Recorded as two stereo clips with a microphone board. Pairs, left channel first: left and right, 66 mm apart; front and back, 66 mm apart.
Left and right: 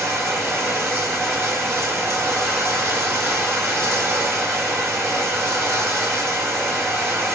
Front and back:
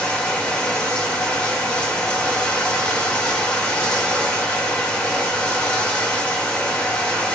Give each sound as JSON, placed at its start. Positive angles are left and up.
{"t": 0.0, "sound": "running water", "azimuth_deg": -60, "distance_m": 1.1}